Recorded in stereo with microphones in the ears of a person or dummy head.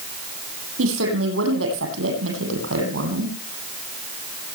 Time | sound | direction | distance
0.8 | a woman speaking | 80° right | 9.5 m